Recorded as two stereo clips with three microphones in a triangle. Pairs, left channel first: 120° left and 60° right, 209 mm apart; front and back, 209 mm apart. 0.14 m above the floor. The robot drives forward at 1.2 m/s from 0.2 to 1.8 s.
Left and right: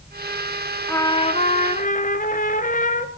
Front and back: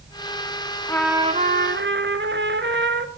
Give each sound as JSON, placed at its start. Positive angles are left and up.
{"t": 0.9, "sound": "a trumpet", "azimuth_deg": 50, "distance_m": 0.7}